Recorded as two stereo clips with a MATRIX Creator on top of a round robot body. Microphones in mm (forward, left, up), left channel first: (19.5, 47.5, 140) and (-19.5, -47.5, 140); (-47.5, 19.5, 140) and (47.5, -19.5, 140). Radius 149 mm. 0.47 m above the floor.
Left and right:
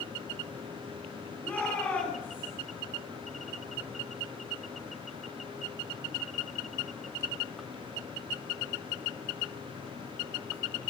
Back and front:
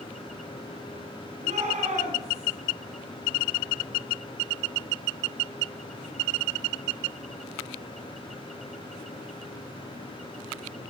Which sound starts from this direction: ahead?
A shout, at 1.4 s.